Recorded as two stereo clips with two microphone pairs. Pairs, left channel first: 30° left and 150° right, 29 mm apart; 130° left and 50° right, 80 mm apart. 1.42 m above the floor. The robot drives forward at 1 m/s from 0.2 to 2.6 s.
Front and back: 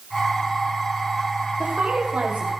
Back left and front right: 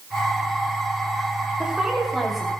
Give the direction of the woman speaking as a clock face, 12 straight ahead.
4 o'clock.